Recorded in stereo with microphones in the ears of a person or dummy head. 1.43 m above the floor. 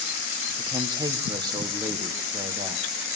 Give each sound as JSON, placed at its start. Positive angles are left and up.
{"t": 0.6, "sound": "a woman speaking", "side_deg": -20, "distance_m": 1.1}